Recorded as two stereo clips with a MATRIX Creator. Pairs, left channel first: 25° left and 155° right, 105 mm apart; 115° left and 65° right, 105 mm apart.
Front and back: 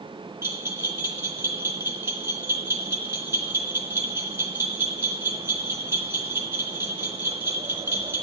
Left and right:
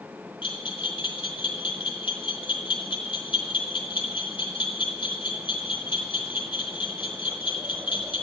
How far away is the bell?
About 3.5 m.